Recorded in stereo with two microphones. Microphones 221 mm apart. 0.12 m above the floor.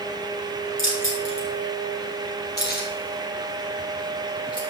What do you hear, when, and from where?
0.8 s keys jangling: 70° left (ahead or behind), 3.5 m; by 4.6 s 20° left (ahead or behind), 3 m